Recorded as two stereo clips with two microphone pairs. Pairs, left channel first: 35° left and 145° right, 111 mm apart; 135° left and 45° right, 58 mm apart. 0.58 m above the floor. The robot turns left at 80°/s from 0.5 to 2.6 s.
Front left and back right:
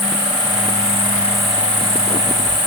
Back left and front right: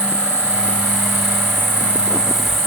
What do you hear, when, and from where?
0.0 s an insect: 20° left, 2.0 m; by 2.7 s 145° right, 2.0 m